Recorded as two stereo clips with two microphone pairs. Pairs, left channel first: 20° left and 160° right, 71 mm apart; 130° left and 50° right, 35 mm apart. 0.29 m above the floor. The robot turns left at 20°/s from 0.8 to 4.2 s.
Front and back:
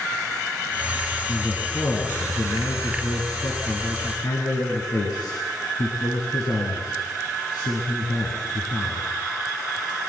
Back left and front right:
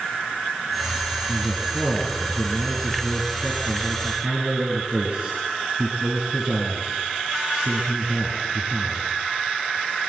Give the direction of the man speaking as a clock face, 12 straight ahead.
10 o'clock.